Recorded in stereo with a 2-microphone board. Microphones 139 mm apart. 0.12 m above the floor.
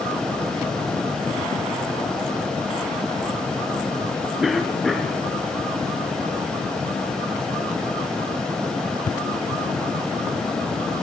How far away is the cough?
About 1.5 m.